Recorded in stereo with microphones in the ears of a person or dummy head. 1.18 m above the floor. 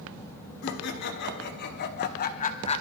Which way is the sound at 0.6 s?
65° left (ahead or behind).